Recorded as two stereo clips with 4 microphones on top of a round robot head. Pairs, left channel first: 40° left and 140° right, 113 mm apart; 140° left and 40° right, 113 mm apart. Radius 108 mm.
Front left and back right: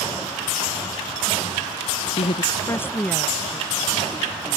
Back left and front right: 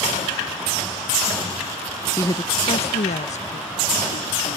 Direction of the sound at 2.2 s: 70° left.